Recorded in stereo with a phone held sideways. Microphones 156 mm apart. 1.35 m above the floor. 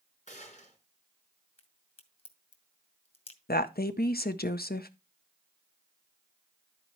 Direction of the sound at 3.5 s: 80° left.